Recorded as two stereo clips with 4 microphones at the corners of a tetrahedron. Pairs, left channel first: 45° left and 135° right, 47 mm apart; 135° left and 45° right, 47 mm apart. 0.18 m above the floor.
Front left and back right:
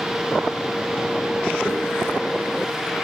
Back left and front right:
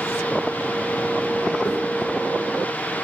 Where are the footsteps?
125° left, 0.9 m.